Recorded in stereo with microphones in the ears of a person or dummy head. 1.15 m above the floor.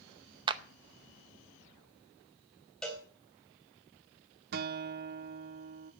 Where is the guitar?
55° right (ahead or behind), 0.8 m.